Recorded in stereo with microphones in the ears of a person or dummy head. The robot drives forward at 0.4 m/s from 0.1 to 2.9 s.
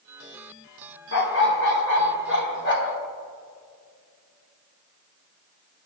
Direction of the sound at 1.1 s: 60° left (ahead or behind).